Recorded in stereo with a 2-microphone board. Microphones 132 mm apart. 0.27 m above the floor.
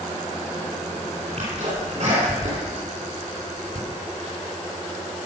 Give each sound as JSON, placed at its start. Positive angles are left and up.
{"t": 1.4, "sound": "a sneeze", "side_deg": -60, "distance_m": 3.0}